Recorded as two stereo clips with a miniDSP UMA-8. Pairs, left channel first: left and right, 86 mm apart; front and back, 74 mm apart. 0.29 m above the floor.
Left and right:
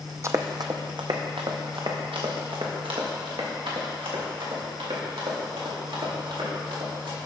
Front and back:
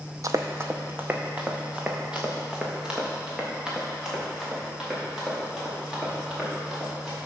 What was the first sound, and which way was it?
Running footsteps, 140° right.